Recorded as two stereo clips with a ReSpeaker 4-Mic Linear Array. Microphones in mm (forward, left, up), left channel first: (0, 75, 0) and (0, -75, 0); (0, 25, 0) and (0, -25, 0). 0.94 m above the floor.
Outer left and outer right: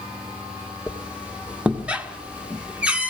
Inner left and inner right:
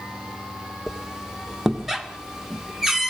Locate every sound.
0.9 s a squeak: 10° right (ahead or behind), 1.9 m